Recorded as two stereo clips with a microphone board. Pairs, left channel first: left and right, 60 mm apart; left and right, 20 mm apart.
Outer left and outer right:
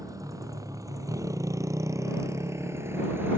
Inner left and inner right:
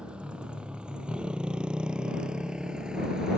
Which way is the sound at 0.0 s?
70° right (ahead or behind).